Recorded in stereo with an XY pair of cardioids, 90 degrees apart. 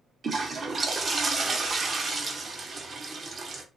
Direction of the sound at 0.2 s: 40° right.